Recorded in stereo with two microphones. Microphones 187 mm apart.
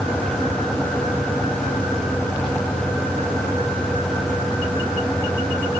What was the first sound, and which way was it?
Only background noise.